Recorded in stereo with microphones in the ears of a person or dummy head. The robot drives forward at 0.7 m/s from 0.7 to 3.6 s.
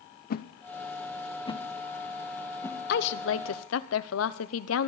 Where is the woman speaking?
60° left (ahead or behind), 0.9 m; by 4.9 s 90° left, 0.8 m.